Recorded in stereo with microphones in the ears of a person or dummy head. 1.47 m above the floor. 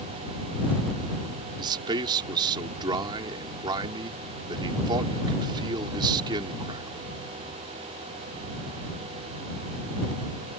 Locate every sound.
1.6 s a man speaking: 25° right (ahead or behind)